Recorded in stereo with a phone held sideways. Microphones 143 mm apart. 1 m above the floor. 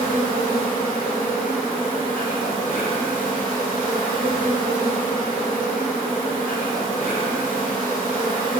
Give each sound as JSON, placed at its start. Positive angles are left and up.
{"t": 0.0, "sound": "an insect", "side_deg": 80, "distance_m": 1.7}